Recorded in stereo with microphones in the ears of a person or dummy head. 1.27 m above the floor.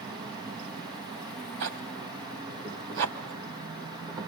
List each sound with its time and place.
0.0 s an insect: 15° right (ahead or behind), 1.2 m
1.6 s a zipper: 60° right (ahead or behind), 2 m